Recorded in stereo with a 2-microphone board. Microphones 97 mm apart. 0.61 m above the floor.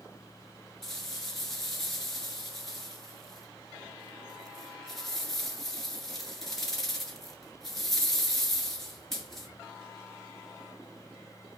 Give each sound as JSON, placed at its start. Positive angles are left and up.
{"t": 0.8, "sound": "a rattle", "side_deg": 5, "distance_m": 2.0}